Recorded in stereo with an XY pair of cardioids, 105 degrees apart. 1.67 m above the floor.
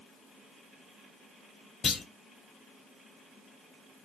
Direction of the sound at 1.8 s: 50° left.